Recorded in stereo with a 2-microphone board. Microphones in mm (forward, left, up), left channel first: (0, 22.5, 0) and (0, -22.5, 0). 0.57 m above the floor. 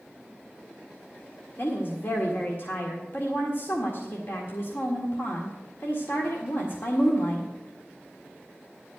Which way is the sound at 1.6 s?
50° left (ahead or behind).